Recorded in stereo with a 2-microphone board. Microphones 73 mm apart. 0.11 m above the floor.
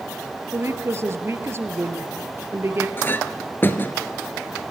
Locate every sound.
0.5 s a woman speaking: 35° right (ahead or behind), 2.5 m
3.0 s a clink: 30° left (ahead or behind), 1.5 m